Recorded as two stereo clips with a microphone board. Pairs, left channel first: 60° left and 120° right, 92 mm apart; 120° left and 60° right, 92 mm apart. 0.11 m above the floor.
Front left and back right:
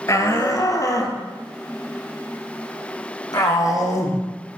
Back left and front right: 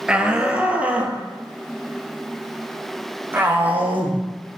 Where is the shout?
15° left, 2 m; by 4.2 s 10° left, 5.5 m.